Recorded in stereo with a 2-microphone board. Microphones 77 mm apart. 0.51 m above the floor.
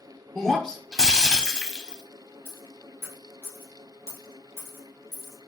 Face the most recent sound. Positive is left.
turn(degrees=50)  # may be behind; listen again after turning